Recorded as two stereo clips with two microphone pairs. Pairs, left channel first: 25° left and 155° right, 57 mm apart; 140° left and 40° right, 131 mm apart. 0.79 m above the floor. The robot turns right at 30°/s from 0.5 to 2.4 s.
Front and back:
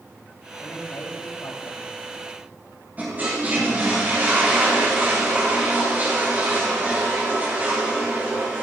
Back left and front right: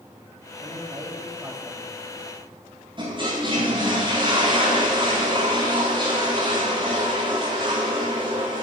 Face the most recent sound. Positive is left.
turn(degrees=-95)